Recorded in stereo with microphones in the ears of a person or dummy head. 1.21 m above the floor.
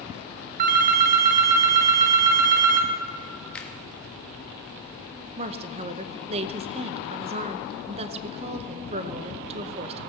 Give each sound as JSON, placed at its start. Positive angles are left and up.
{"t": 0.6, "sound": "a phone ringing", "side_deg": -50, "distance_m": 0.5}
{"t": 3.5, "sound": "a finger snap", "side_deg": 5, "distance_m": 1.2}
{"t": 5.4, "sound": "a woman speaking", "side_deg": -40, "distance_m": 0.8}